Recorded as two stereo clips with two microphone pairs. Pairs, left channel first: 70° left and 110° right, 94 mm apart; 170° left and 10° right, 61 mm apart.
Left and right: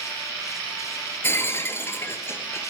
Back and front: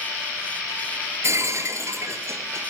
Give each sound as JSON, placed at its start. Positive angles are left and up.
{"t": 1.2, "sound": "breaking glass", "azimuth_deg": 10, "distance_m": 1.6}